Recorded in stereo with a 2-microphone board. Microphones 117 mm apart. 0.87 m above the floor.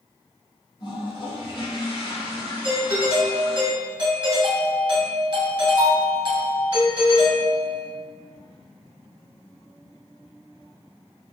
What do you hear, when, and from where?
0.8 s a toilet flushing: 40° left (ahead or behind), 1.1 m
2.6 s a doorbell: 40° right (ahead or behind), 1.1 m